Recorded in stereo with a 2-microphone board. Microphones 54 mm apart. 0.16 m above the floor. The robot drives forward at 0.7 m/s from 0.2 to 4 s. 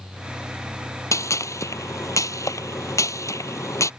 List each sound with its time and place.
1.1 s a gunshot: 65° left (ahead or behind)